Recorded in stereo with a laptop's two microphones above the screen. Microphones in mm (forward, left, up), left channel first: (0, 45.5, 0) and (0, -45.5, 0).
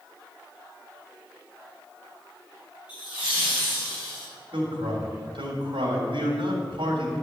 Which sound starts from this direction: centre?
Laughter, at 2.9 s.